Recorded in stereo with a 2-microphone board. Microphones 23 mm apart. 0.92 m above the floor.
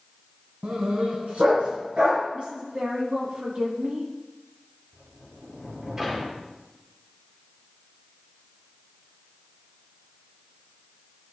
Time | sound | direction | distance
0.6 | a dog barking | 70° right (ahead or behind) | 1.8 m
2.3 | a woman speaking | 60° right (ahead or behind) | 2 m
4.9 | a sliding door | 30° right (ahead or behind) | 2.5 m